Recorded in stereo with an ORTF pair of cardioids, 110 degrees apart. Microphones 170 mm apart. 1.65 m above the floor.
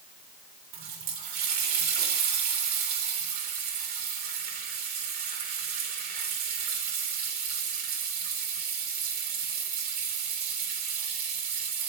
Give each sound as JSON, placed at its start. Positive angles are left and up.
{"t": 0.7, "sound": "a running tap", "azimuth_deg": -70, "distance_m": 3.5}